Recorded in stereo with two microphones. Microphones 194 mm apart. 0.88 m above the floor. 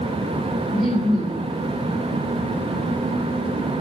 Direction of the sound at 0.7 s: Centre (ahead or behind).